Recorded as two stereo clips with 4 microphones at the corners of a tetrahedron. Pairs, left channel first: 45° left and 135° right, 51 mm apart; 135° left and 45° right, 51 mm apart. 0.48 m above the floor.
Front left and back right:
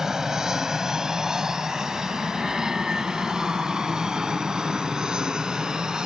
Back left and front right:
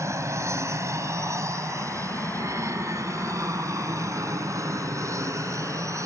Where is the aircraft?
55° right; by 6.1 s 60° right.